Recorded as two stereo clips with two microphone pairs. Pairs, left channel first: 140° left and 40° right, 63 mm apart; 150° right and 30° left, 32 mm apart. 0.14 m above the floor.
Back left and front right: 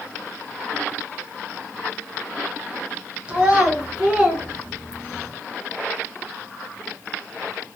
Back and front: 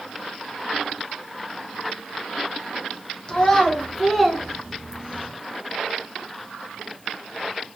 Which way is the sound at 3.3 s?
95° right.